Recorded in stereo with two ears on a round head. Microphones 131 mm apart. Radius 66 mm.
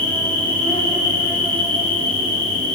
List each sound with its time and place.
0.0 s an insect: 10° left (ahead or behind), 2 m